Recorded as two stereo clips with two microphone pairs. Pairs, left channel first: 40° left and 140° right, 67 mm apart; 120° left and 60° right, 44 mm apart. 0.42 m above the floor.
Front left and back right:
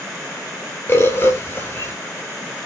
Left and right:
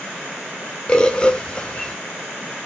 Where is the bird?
65° left, 1.8 m.